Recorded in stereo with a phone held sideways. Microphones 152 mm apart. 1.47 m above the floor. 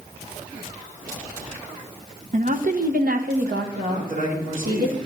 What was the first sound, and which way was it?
A woman speaking, 55° right (ahead or behind).